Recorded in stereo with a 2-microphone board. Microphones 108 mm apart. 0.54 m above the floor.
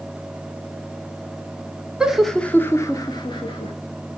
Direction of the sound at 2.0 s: 10° right (ahead or behind).